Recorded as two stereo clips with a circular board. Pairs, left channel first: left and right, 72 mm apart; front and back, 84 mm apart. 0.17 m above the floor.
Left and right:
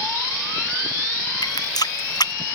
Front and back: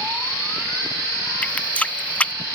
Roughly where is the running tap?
Left.